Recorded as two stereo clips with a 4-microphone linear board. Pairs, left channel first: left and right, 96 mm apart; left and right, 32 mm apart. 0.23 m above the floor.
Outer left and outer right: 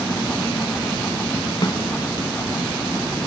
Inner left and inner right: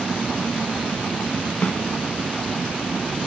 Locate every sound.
1.6 s a snare drum: 50° left (ahead or behind), 1.6 m